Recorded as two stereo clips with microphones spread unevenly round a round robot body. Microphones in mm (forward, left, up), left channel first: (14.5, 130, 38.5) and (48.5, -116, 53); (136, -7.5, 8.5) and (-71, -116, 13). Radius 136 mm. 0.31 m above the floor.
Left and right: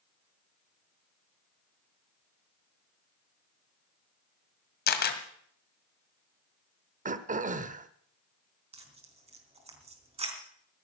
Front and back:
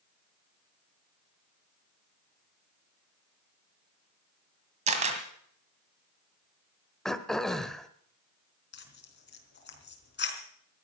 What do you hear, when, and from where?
4.9 s a camera shutter: 145° left, 2.0 m
7.0 s throat clearing: 55° right, 1.0 m
8.7 s tearing paper: 15° right, 3.5 m